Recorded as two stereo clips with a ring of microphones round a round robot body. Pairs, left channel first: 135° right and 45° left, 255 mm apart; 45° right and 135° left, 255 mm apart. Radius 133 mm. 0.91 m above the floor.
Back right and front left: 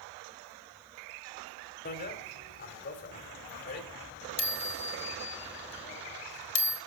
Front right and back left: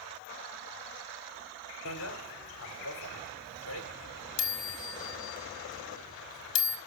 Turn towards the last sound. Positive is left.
turn(degrees=-85)